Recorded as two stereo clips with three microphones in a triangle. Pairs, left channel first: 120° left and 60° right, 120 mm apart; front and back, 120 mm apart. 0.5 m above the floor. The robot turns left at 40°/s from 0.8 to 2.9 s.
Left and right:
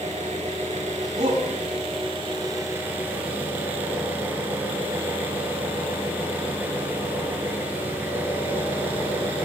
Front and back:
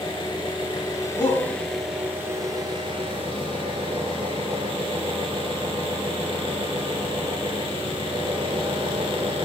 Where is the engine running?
50° right, 4 m; by 9.4 s 135° right, 4 m.